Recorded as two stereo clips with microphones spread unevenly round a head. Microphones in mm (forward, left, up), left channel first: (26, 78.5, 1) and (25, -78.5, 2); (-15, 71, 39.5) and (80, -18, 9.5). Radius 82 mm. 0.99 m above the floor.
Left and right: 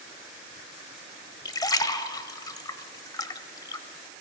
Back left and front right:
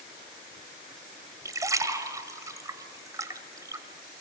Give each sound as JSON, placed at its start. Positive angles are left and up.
{"t": 1.4, "sound": "a splash", "azimuth_deg": 30, "distance_m": 1.2}